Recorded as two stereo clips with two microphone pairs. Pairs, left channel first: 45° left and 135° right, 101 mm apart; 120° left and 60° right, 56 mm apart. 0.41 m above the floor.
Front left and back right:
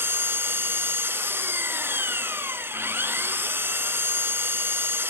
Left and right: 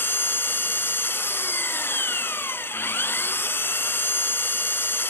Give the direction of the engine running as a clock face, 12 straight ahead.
7 o'clock.